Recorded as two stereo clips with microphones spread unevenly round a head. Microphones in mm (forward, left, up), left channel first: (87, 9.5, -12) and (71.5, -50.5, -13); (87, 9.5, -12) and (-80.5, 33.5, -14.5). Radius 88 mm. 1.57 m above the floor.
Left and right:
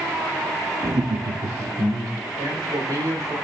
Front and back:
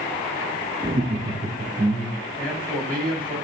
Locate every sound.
0.8 s laughter: 125° right, 0.5 m; by 2.2 s 115° right, 1.7 m
2.4 s a man speaking: 90° right, 3.5 m